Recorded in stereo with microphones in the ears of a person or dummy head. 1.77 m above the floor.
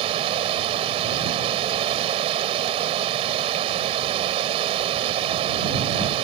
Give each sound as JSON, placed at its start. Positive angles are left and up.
{"t": 0.0, "sound": "running water", "side_deg": -35}